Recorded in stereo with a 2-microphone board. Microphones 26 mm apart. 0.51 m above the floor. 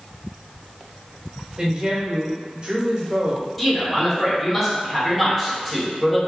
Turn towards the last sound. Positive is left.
turn(degrees=0)  # may be behind; listen again after turning